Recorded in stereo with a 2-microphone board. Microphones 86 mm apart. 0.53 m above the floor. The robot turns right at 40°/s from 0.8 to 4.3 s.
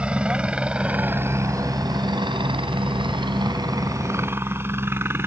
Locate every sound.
0.0 s a helicopter: 10° right (ahead or behind); by 5.3 s 30° right (ahead or behind)